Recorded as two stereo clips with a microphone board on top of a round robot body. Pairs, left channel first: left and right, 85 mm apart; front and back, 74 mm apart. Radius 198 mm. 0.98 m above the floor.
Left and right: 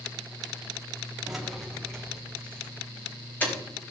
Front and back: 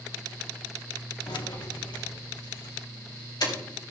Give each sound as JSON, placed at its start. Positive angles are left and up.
{"t": 1.3, "sound": "keys jangling", "azimuth_deg": -5, "distance_m": 1.7}